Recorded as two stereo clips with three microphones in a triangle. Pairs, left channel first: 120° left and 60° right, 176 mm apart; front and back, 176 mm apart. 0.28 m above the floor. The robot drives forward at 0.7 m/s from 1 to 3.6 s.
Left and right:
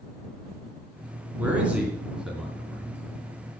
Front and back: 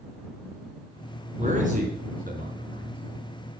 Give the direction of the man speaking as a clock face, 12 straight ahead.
5 o'clock.